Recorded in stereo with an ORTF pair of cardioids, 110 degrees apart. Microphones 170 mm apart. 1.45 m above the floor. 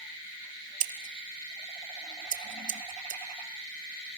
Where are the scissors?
50° right, 2 m.